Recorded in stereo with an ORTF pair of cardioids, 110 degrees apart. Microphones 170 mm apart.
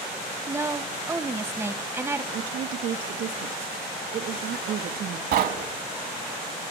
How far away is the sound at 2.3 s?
About 2.5 m.